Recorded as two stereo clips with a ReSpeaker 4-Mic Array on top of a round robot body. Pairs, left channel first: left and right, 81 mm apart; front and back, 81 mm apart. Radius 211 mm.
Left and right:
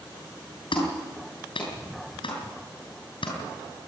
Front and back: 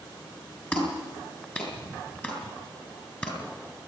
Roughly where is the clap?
Left.